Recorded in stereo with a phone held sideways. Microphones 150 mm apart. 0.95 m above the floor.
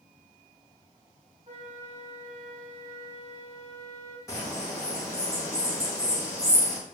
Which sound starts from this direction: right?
A flute, at 1.5 s.